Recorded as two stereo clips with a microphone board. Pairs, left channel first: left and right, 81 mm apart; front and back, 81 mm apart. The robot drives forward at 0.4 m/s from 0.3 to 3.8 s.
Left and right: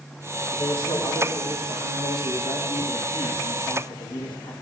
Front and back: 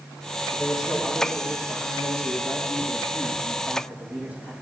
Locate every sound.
0.5 s a man speaking: 90° left, 4 m; by 4.5 s 110° left, 4.5 m